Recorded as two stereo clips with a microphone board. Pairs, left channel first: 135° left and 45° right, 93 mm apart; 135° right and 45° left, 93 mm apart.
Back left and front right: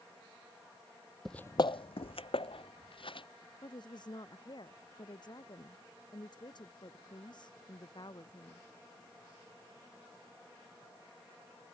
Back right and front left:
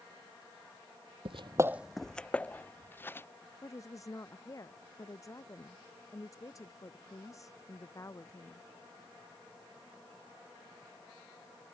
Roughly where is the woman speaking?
Behind.